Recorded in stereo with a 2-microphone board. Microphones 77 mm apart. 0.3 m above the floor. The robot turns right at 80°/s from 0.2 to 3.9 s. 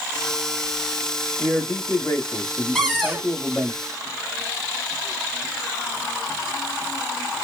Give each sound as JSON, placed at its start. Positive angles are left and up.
{"t": 1.4, "sound": "a man speaking", "azimuth_deg": 15, "distance_m": 1.4}
{"t": 2.8, "sound": "a cupboard door", "azimuth_deg": 175, "distance_m": 1.5}